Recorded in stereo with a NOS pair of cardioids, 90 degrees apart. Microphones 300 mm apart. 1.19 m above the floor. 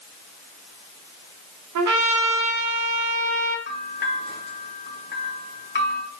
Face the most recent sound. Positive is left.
turn(degrees=35)